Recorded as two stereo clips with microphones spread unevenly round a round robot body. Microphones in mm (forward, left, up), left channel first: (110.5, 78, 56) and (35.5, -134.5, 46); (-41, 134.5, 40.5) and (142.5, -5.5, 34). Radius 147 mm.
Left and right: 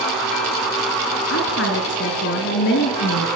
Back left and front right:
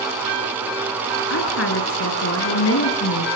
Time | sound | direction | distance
1.3 | a woman speaking | 120° left | 5 m